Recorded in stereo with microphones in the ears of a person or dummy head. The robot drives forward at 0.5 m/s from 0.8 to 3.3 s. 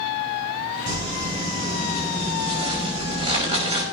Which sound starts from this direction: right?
Crumpling, at 0.9 s.